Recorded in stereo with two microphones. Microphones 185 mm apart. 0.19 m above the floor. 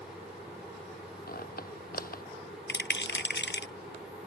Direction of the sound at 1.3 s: 55° left (ahead or behind).